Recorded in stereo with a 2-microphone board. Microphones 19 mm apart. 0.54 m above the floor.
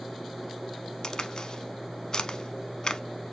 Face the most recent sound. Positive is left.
turn(degrees=40)  # may be behind; listen again after turning